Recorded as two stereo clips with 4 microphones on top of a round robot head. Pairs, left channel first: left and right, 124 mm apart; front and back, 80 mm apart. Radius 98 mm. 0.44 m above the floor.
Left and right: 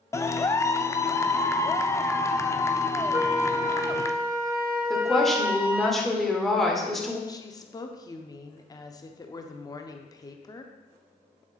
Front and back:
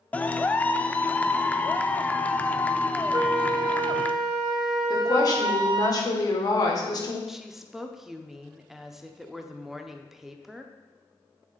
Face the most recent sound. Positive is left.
turn(degrees=100)